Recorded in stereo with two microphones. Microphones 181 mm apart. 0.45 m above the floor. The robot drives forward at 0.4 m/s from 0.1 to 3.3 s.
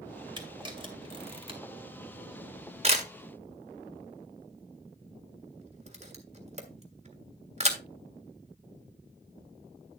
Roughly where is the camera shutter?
Right.